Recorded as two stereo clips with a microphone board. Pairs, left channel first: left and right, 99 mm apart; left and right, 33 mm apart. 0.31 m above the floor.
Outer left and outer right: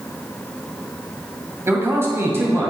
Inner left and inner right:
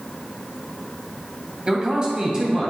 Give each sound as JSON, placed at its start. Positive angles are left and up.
{"t": 1.7, "sound": "a man speaking", "side_deg": -25, "distance_m": 1.8}